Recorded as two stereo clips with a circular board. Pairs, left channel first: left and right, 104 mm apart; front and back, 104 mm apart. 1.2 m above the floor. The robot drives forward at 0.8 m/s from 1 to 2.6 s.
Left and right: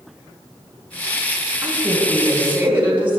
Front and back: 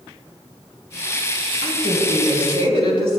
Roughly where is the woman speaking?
Behind.